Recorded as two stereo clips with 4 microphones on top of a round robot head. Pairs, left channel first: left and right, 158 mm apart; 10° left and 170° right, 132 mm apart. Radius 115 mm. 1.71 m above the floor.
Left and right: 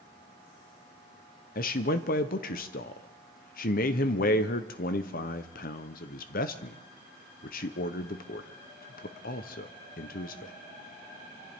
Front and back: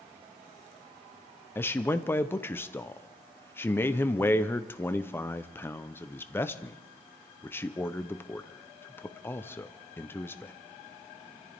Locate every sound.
1.6 s a man speaking: 80° left, 0.7 m